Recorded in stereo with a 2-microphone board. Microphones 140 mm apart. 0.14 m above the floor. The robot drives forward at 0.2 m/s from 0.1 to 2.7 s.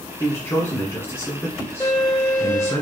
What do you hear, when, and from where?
0.2 s a man speaking: 20° left (ahead or behind), 1.3 m
1.8 s a violin: 15° left (ahead or behind), 2.5 m